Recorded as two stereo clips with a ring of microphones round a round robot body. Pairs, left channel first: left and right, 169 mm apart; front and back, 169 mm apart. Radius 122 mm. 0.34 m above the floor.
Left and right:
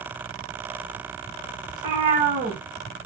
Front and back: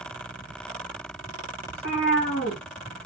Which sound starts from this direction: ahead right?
A cat meowing, at 1.7 s.